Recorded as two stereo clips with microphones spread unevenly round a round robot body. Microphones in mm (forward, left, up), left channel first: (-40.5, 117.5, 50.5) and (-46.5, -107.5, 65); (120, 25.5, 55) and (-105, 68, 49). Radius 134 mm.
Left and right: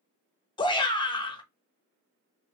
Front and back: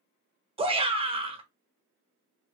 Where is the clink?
I don't hear a clink.